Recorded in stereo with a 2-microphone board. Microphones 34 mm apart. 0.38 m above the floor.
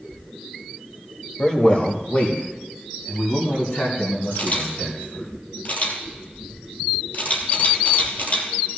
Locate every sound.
1.4 s a man speaking: 30° left (ahead or behind), 1.9 m; by 5.3 s 75° left (ahead or behind), 5 m
4.3 s a camera shutter: 60° left (ahead or behind), 3 m